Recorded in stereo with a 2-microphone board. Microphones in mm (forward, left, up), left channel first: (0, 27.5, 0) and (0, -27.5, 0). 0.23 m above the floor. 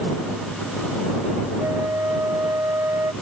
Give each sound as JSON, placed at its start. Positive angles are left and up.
{"t": 1.6, "sound": "a flute", "side_deg": -75}